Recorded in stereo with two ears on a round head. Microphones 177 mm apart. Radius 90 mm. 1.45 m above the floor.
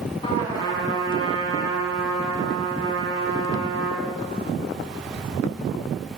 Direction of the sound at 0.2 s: 25° left (ahead or behind).